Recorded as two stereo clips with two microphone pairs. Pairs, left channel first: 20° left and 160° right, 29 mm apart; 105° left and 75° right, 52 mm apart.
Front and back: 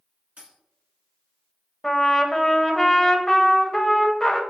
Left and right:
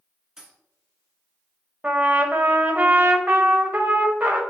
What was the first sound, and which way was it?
A dropped coin, 155° right.